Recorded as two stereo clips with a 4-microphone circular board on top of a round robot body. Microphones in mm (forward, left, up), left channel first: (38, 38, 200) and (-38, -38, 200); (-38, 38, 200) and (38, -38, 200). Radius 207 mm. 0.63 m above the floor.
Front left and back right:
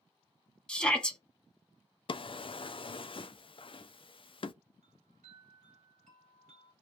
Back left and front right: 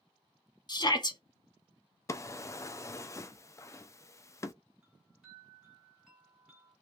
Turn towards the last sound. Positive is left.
turn(degrees=-130)